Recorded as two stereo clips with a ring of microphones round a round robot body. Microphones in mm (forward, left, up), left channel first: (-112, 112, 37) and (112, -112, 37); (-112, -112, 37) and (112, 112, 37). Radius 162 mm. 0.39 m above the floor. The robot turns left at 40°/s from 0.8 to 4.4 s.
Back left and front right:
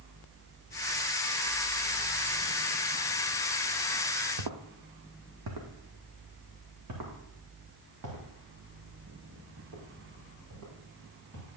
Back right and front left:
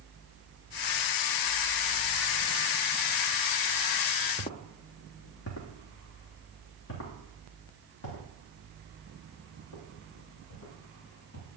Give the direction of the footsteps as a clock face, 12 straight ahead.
2 o'clock.